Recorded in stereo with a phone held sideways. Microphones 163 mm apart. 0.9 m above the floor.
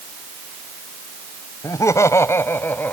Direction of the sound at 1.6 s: 20° left (ahead or behind).